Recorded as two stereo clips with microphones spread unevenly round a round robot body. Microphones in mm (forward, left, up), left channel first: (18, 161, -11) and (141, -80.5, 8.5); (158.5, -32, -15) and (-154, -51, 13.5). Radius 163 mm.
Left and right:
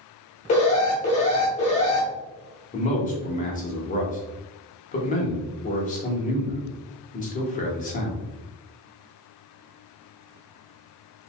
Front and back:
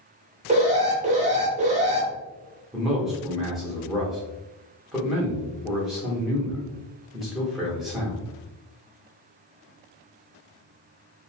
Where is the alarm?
130° left, 0.7 m.